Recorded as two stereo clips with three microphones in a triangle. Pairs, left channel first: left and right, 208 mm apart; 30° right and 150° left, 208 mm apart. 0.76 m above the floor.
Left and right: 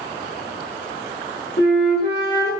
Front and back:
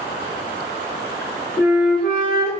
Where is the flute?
55° left, 1.0 m.